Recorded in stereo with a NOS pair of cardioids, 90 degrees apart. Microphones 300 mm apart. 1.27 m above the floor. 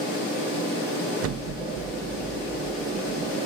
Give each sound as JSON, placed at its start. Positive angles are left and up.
{"t": 1.2, "sound": "an explosion", "azimuth_deg": -55, "distance_m": 1.6}